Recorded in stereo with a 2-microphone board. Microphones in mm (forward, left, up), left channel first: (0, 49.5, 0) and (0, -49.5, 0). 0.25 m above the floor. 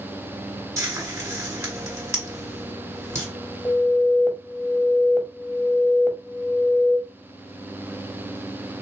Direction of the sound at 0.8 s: 25° right (ahead or behind).